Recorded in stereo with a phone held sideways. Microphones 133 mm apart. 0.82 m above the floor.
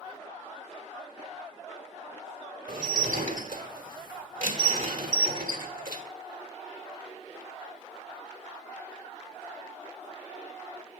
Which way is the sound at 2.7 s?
85° right.